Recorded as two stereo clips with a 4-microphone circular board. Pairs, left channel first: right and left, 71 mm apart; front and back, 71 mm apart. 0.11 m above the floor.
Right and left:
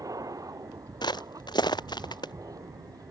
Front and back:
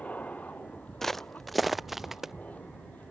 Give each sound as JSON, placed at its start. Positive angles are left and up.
{"t": 0.0, "sound": "an aircraft", "azimuth_deg": 65}
{"t": 1.0, "sound": "footsteps", "azimuth_deg": -85}